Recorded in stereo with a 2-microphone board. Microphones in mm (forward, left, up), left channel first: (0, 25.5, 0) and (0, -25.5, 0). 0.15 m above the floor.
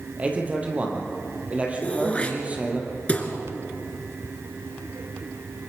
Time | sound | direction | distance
0.2 | a man speaking | 25° right (ahead or behind) | 4 m
1.8 | throat clearing | 25° left (ahead or behind) | 2.5 m